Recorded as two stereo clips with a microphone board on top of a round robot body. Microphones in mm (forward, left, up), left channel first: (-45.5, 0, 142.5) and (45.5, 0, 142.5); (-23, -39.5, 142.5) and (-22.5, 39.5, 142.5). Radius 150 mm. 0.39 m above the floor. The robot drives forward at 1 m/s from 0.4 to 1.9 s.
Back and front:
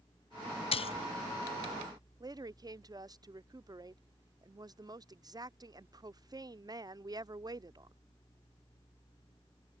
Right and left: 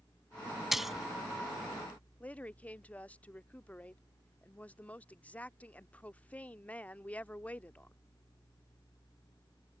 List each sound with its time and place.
0.7 s a splash: 175° left; by 1.1 s straight behind
2.2 s a woman speaking: 25° right